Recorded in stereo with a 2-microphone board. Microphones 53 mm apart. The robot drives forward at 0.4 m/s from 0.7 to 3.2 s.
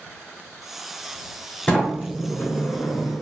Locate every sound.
1.7 s a sliding door: 25° left (ahead or behind), 1.0 m; by 3.2 s 55° left (ahead or behind), 0.5 m